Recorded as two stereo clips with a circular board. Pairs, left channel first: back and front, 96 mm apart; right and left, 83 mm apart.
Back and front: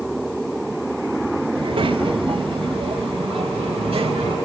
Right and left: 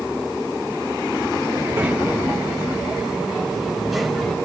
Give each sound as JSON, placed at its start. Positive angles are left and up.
{"t": 1.6, "sound": "a child speaking", "azimuth_deg": 20, "distance_m": 5.5}